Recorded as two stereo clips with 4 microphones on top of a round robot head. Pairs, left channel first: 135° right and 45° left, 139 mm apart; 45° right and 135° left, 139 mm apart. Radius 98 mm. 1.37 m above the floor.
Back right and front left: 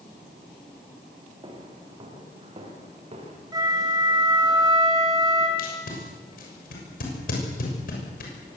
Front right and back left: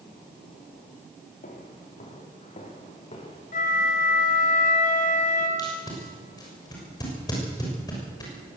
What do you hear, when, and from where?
1.4 s footsteps: 10° right, 6.5 m; by 3.4 s 5° left, 7 m
3.5 s a flute: 15° right, 3.5 m
5.6 s tape being pulled: 115° right, 6.5 m